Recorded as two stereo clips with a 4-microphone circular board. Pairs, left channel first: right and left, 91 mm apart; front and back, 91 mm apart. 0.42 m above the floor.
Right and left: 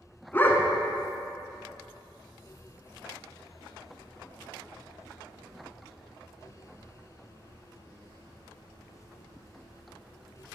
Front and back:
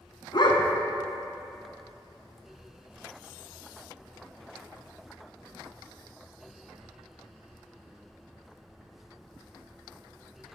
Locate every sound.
0.3 s a dog barking: 25° right, 1.0 m